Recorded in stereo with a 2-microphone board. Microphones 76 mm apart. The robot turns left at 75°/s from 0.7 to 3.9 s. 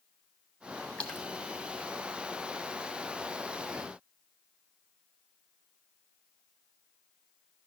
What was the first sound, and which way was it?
A splash, 15° left (ahead or behind).